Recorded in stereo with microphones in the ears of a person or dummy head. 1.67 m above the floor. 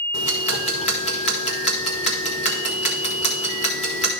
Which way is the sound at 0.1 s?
40° left (ahead or behind).